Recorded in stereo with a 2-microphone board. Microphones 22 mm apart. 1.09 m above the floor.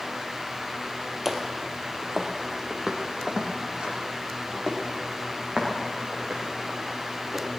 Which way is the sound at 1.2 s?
10° right (ahead or behind).